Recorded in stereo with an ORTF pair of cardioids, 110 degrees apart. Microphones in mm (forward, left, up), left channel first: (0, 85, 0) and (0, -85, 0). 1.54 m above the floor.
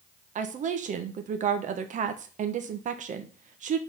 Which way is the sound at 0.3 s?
50° right.